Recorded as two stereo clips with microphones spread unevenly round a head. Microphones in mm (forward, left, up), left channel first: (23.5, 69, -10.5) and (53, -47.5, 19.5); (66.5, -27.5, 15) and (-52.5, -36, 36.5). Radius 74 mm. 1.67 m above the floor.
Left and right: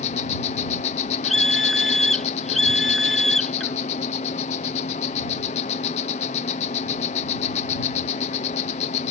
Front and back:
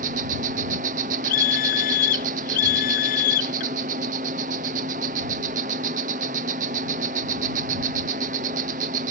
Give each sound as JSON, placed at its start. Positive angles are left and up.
{"t": 0.0, "sound": "an insect", "azimuth_deg": 145}
{"t": 1.2, "sound": "a scream", "azimuth_deg": 10}